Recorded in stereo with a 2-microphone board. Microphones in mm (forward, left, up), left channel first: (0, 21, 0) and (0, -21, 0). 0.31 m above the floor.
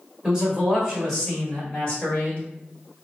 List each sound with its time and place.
0.2 s a man speaking: 20° right (ahead or behind), 1.4 m; by 2.4 s 30° left (ahead or behind), 1.6 m